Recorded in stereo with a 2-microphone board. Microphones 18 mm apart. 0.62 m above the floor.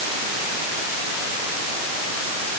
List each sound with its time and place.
Only background noise.